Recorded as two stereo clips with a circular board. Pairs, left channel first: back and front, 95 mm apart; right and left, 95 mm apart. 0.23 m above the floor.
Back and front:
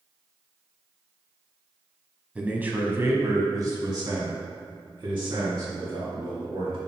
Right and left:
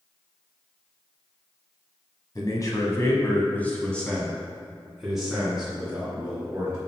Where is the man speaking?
70° right, 1.4 m; by 6.8 s 15° left, 3 m.